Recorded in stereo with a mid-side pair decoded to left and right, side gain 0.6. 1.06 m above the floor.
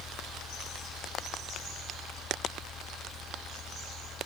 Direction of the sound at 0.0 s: 45° left.